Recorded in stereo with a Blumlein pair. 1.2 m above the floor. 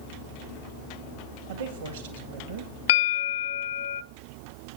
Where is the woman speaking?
65° right, 1.9 m.